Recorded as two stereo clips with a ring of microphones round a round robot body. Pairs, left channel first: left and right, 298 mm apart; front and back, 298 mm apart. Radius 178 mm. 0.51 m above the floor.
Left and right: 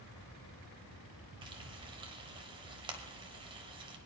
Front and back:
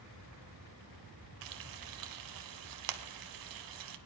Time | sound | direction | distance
1.4 | frying | 165° right | 0.8 m